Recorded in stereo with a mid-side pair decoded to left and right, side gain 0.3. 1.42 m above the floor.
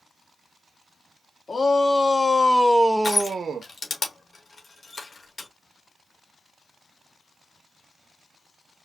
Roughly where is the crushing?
Ahead left.